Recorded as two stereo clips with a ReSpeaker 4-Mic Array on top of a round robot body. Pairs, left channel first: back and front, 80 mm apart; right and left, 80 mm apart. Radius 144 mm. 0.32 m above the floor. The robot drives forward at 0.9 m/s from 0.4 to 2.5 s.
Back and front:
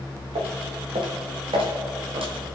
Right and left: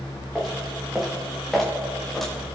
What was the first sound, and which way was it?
Footsteps, 5° left.